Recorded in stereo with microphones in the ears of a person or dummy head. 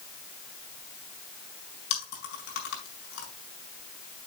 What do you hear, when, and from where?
1.9 s chewing: 75° left (ahead or behind), 5 m